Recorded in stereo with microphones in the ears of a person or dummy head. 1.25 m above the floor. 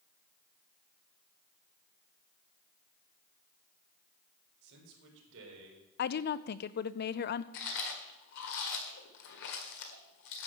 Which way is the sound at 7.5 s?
65° left (ahead or behind).